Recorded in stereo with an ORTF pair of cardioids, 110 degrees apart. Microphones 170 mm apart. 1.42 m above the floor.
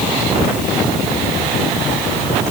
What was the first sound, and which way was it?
Only background noise.